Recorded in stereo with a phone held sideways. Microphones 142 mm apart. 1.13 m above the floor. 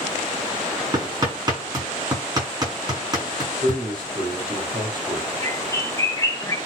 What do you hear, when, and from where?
0.9 s hammering: 30° right (ahead or behind), 7 m
3.6 s a man speaking: 35° right (ahead or behind), 5 m
5.4 s a bird: 20° left (ahead or behind), 1.2 m